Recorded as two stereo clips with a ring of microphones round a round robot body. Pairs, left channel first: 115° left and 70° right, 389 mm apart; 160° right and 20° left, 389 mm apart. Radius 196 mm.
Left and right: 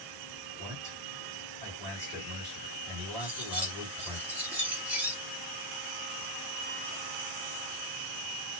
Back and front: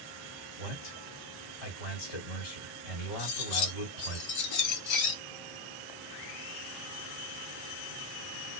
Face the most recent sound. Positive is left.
turn(degrees=-155)